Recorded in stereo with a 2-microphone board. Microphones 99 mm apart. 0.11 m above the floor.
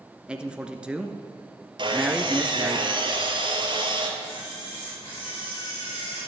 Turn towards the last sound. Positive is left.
turn(degrees=50)  # may be behind; listen again after turning